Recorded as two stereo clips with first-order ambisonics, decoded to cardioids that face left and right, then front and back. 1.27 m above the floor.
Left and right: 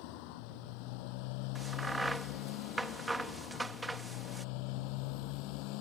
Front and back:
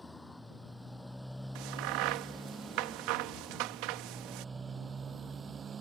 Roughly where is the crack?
Behind.